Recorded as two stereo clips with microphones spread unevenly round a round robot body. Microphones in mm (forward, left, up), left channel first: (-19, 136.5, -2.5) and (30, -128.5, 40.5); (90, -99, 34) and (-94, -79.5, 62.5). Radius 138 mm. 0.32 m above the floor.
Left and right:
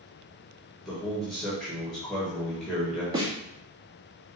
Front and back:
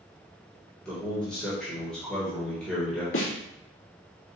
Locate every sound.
0.8 s a man speaking: 40° left, 1.3 m
3.1 s a snare drum: 5° right, 2 m